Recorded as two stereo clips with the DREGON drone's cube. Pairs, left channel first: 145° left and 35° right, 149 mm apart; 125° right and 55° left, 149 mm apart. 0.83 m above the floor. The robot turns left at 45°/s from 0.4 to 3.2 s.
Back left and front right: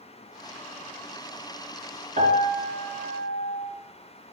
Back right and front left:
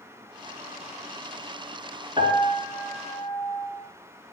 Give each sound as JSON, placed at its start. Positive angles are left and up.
{"t": 2.2, "sound": "a piano", "azimuth_deg": 0, "distance_m": 3.5}